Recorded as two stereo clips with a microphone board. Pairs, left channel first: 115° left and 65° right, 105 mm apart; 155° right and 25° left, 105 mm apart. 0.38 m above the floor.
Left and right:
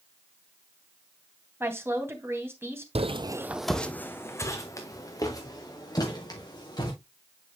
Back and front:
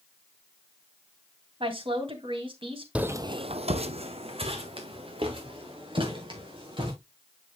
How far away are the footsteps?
About 0.8 m.